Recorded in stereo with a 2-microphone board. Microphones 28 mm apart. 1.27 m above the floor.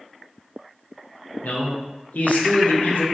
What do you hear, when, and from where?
1.4 s a man speaking: 70° left (ahead or behind), 0.6 m